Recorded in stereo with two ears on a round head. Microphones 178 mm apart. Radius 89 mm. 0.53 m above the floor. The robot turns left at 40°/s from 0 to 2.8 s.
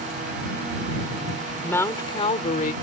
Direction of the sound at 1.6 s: 170° left.